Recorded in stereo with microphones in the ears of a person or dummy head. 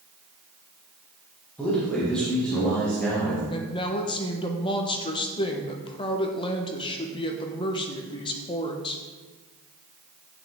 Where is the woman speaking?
25° left (ahead or behind), 1.4 m.